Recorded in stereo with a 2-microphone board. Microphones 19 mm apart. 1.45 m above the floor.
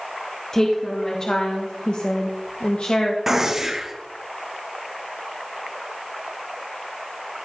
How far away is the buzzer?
I don't hear a buzzer.